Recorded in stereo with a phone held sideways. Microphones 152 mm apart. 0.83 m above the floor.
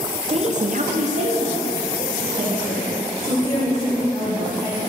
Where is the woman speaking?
40° right (ahead or behind), 0.9 m; by 4.8 s 15° right (ahead or behind), 5 m.